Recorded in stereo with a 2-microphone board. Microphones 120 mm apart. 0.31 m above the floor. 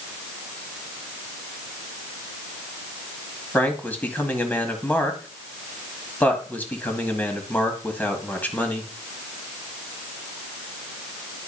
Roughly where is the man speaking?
Centre.